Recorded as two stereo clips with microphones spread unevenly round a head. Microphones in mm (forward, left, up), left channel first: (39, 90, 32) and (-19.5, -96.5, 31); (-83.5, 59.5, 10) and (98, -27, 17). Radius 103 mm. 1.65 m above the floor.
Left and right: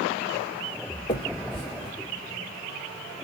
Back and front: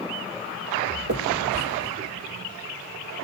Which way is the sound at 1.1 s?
5° left.